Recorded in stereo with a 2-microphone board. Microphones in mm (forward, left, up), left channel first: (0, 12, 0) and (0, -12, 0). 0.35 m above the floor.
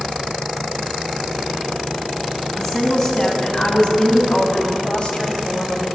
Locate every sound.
2.6 s a woman speaking: 15° left (ahead or behind), 3 m; by 5.9 s 45° left (ahead or behind), 1.9 m